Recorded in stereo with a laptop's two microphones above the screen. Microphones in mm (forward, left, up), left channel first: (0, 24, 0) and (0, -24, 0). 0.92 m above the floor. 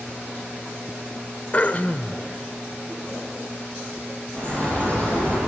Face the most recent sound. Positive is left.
turn(degrees=35)  # may be behind; listen again after turning